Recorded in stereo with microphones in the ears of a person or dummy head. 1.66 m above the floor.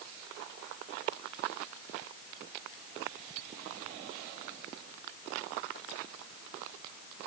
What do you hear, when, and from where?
Only background noise.